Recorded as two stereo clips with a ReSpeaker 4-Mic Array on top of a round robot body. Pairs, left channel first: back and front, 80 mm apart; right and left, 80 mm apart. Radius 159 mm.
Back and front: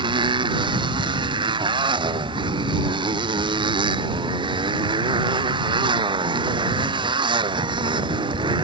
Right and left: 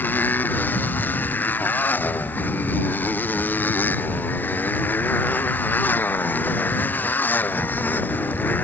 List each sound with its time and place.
0.0 s a motorcycle: 20° right